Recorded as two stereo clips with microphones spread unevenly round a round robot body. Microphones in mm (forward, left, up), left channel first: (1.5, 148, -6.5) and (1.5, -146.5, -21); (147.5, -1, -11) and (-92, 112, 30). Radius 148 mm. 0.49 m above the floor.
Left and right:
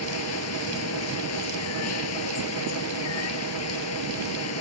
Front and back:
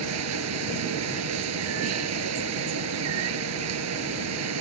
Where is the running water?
130° left.